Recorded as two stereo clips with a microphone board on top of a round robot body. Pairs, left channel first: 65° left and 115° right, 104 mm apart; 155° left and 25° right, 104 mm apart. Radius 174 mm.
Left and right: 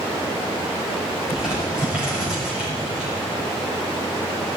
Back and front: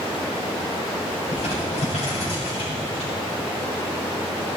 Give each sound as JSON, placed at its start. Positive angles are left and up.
{"t": 1.3, "sound": "crumpling", "azimuth_deg": 165, "distance_m": 5.5}